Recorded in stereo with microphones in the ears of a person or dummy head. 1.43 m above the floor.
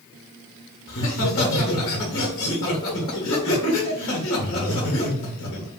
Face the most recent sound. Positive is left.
turn(degrees=60)  # may be behind; listen again after turning